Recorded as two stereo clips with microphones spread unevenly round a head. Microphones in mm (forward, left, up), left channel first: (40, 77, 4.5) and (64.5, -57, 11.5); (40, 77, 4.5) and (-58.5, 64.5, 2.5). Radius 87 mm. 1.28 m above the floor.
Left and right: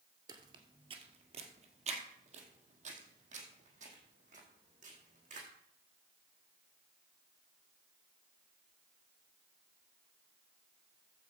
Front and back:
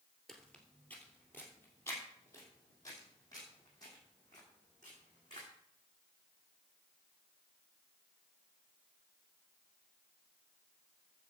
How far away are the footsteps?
About 1.4 m.